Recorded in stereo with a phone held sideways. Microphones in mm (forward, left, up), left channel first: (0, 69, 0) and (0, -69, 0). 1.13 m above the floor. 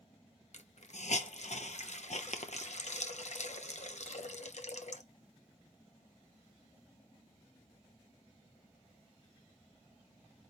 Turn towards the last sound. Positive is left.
turn(degrees=60)  # may be behind; listen again after turning